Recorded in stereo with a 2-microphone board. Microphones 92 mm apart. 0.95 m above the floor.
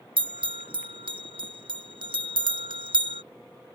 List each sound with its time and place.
0.2 s a bell: 70° right (ahead or behind)